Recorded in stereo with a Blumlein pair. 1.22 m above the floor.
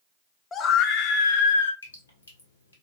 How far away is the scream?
About 0.6 m.